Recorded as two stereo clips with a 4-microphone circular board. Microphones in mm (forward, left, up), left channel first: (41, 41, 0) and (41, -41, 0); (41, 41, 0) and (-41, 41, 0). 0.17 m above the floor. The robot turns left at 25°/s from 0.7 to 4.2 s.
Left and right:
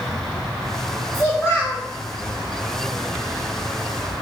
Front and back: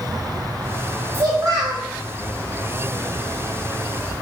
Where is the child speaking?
140° left, 1.9 m; by 1.8 s 125° left, 1.9 m.